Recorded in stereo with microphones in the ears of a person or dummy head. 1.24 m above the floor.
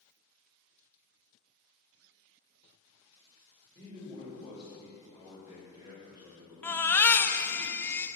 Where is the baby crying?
10° left (ahead or behind), 0.8 m.